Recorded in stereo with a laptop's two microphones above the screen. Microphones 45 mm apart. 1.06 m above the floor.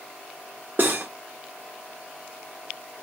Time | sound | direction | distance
0.8 | cutlery clinking | 50° right (ahead or behind) | 0.9 m